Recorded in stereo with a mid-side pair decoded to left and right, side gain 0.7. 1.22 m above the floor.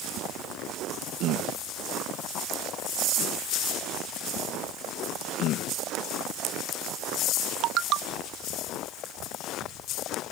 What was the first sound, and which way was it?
Only background noise.